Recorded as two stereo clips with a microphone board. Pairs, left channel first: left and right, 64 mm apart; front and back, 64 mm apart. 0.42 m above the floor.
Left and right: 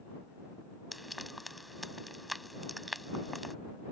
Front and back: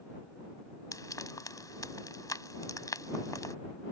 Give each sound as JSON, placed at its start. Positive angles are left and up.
{"t": 0.9, "sound": "frying", "azimuth_deg": 0}